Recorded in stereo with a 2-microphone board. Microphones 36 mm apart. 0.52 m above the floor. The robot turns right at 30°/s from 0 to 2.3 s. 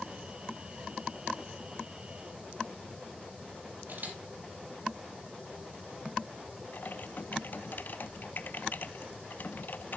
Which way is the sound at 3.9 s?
60° right (ahead or behind).